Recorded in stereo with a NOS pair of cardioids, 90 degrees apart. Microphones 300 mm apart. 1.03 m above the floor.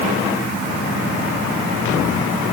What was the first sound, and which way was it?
Only background noise.